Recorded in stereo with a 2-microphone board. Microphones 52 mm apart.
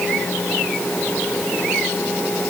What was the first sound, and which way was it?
Only background noise.